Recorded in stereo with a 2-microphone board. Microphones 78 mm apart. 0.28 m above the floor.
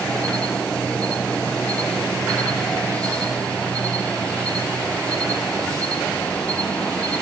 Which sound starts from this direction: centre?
An insect, at 0.0 s.